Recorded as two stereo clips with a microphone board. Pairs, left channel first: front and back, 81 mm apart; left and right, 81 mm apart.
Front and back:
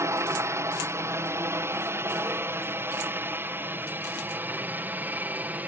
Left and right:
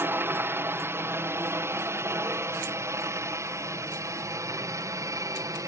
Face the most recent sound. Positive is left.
turn(degrees=-120)